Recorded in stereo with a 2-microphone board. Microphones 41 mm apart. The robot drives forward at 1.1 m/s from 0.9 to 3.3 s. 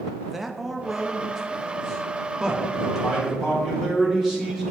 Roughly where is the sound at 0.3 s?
Centre.